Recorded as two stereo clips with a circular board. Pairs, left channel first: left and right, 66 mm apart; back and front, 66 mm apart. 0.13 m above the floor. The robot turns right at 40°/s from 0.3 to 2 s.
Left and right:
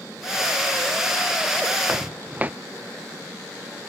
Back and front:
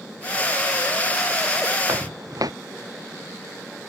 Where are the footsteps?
30° right; by 2.5 s 25° right.